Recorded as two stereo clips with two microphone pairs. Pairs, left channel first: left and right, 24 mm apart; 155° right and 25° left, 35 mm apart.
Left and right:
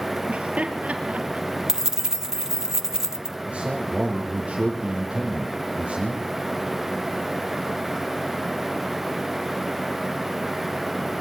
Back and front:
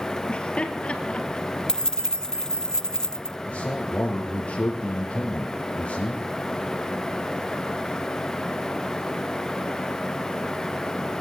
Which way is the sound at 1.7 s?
115° right.